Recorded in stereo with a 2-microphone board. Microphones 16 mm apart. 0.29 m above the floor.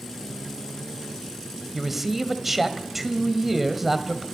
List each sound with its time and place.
1.7 s a man speaking: 15° right (ahead or behind), 1.7 m